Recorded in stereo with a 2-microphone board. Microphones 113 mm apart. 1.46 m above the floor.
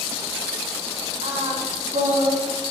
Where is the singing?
75° right (ahead or behind), 1.2 m.